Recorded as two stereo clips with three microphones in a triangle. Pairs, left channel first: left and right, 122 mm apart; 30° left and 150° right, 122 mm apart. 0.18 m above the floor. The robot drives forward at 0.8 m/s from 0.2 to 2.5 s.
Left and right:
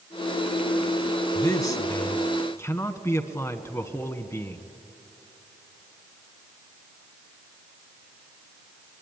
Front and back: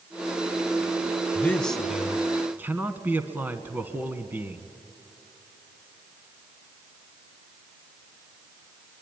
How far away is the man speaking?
About 1.3 m.